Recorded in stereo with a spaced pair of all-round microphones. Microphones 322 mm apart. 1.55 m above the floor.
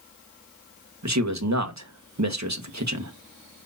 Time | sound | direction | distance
1.0 | a man speaking | 60° right (ahead or behind) | 1.4 m